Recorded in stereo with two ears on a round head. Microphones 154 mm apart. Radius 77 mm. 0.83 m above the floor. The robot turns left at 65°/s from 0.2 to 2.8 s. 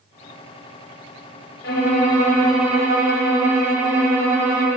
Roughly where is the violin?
Ahead left.